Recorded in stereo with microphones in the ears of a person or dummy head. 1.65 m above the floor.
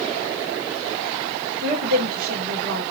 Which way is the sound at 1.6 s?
80° right.